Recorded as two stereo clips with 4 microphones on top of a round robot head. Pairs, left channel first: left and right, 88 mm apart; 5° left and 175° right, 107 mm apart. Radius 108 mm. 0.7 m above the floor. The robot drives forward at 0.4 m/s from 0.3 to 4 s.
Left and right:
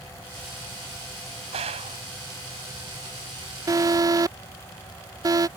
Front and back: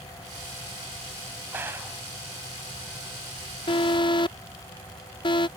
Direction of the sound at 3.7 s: 40° right.